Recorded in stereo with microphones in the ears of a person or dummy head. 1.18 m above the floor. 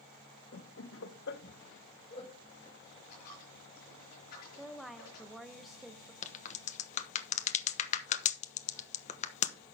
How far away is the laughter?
About 0.9 m.